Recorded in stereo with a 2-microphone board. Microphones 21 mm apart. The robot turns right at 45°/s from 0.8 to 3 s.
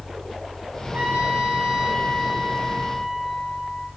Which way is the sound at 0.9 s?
80° right.